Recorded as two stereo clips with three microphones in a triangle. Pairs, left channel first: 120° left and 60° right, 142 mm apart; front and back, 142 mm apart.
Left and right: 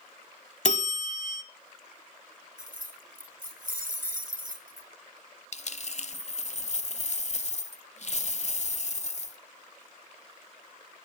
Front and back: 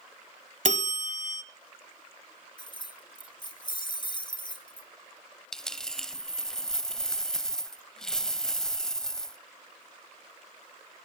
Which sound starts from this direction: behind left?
A bell, at 0.7 s.